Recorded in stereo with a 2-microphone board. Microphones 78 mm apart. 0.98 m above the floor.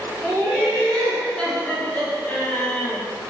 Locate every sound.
0.2 s laughter: 10° right (ahead or behind), 0.9 m; by 3.0 s 25° left (ahead or behind), 1.1 m